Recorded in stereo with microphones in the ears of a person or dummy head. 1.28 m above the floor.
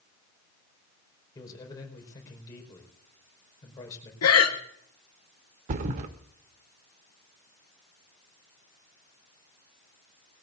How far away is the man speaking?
About 5 m.